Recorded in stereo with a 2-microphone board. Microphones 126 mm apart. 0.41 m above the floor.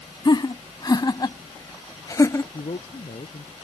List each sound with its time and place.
0.2 s laughter: 35° left (ahead or behind); by 2.4 s 25° left (ahead or behind)
2.5 s a man speaking: 60° left (ahead or behind)